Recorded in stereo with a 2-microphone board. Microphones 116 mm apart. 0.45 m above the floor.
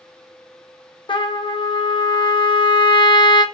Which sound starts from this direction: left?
A trumpet, at 1.1 s.